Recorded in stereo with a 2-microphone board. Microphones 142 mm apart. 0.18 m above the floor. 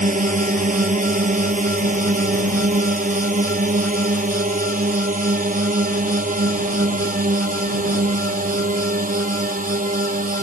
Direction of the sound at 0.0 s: 65° right (ahead or behind).